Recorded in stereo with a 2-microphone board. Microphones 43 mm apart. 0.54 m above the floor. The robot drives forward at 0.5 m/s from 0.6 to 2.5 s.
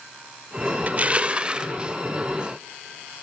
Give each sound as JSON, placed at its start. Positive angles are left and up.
{"t": 0.9, "sound": "crushing", "side_deg": -40, "distance_m": 0.5}